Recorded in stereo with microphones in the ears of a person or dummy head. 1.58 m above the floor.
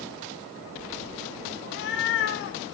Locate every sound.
1.6 s a cat meowing: 60° left (ahead or behind), 2 m